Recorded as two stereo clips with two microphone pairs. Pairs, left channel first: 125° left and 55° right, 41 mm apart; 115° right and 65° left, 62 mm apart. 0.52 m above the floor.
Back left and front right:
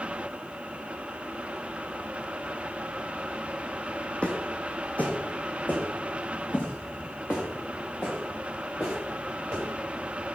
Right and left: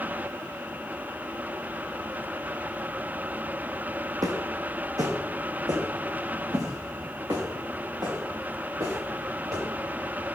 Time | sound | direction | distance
4.2 | footsteps | 70° left | 1.4 m